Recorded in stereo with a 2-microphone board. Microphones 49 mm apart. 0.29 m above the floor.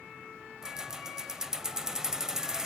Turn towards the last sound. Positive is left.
turn(degrees=-10)  # may be behind; listen again after turning